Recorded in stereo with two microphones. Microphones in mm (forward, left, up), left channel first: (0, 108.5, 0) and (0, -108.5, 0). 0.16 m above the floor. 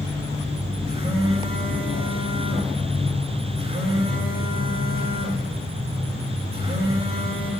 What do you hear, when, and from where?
0.9 s a phone buzzing: 30° right (ahead or behind), 7.5 m